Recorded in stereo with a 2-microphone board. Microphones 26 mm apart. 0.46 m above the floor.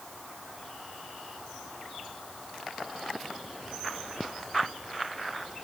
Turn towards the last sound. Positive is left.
No sound to turn to.